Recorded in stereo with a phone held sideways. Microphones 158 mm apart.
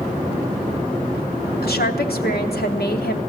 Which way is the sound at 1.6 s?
85° left.